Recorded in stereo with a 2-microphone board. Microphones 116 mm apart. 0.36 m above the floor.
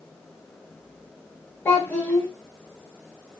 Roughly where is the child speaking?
Centre.